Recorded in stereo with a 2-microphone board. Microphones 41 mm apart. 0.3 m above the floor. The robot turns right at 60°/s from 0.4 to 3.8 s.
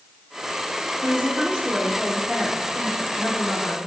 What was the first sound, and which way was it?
A woman speaking, 55° right.